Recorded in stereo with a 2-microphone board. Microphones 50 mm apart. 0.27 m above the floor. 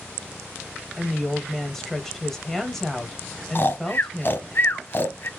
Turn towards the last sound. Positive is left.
turn(degrees=50)  # may be behind; listen again after turning